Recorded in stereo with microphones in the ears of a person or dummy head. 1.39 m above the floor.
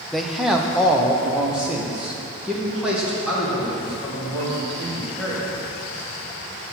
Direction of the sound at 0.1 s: 5° left (ahead or behind).